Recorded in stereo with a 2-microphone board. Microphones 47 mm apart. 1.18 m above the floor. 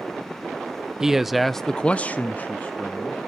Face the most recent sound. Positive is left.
turn(degrees=35)  # may be behind; listen again after turning